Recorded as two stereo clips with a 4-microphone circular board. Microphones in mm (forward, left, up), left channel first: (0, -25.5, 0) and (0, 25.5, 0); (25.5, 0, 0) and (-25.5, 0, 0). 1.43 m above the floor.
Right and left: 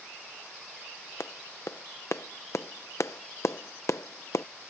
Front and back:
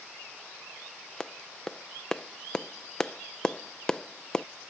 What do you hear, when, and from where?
1.2 s a clap: 75° right